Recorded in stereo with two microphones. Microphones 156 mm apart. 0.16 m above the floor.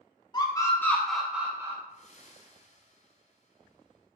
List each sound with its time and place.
0.3 s a scream: 30° left (ahead or behind), 1.3 m; by 1.8 s 20° right (ahead or behind), 1.3 m
1.9 s breathing: 45° left (ahead or behind), 1.5 m